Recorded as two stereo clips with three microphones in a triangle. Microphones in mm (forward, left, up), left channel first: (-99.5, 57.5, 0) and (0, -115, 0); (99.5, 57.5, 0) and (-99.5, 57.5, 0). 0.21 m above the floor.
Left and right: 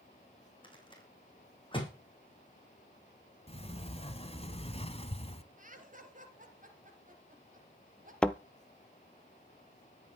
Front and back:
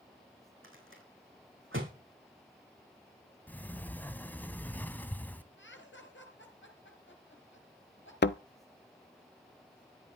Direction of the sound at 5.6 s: 15° right.